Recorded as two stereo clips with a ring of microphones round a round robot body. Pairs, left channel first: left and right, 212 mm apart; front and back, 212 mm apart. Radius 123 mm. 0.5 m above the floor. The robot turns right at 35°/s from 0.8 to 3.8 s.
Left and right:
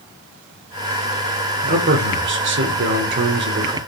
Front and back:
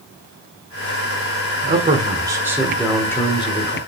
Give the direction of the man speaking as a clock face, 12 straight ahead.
4 o'clock.